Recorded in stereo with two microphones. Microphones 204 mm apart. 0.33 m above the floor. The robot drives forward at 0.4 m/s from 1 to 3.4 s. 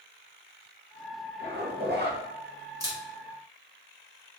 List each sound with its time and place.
1.4 s a zipper: 50° right (ahead or behind), 0.8 m
2.8 s a camera shutter: 20° right (ahead or behind), 1.1 m; by 3.0 s 15° right (ahead or behind), 1.2 m